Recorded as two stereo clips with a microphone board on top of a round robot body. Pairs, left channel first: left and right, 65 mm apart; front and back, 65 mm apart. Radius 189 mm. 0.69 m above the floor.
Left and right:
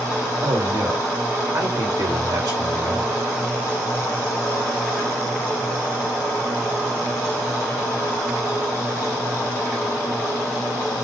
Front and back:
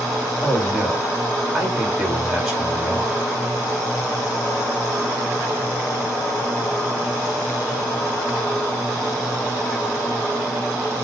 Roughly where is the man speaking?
Right.